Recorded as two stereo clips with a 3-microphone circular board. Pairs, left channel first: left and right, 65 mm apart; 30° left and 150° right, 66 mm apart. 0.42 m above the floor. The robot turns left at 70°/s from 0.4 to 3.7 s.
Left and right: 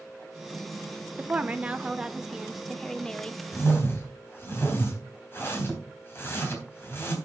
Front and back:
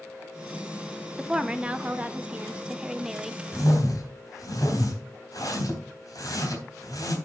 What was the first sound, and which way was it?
A woman speaking, 80° right.